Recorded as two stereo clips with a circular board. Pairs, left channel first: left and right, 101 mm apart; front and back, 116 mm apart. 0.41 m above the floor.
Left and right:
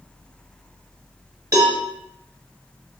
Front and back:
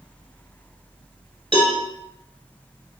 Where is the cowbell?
140° right, 1.0 m.